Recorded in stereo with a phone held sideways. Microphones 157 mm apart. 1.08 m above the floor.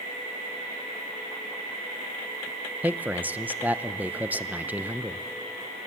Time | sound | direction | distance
2.8 | a man speaking | 10° right (ahead or behind) | 0.6 m